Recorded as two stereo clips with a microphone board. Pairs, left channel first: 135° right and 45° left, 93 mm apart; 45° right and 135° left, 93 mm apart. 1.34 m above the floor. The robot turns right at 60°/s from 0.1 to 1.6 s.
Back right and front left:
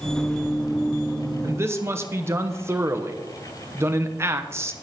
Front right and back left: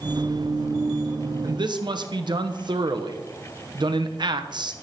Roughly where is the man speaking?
Left.